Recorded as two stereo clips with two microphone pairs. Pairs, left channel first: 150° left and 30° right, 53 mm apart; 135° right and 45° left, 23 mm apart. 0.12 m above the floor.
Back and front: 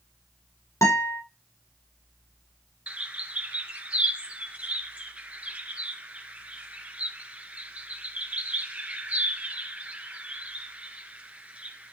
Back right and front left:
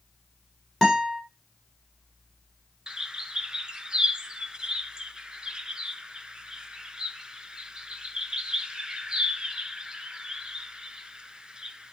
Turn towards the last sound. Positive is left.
turn(degrees=25)